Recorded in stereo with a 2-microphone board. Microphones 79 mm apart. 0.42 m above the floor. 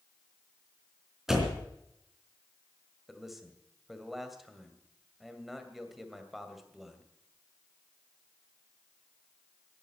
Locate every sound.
1.3 s a door slam: 5° right (ahead or behind), 3 m
3.1 s a man speaking: 5° right (ahead or behind), 2 m